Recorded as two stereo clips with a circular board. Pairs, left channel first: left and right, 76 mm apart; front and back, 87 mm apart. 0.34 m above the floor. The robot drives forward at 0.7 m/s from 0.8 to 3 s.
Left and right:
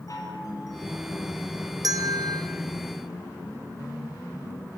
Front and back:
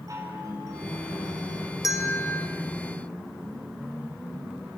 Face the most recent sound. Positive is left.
turn(degrees=-95)